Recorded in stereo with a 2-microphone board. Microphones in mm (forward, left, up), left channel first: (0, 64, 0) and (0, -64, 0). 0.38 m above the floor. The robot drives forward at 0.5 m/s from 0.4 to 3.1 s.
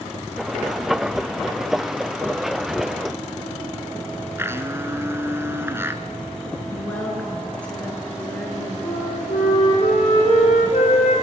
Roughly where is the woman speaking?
Centre.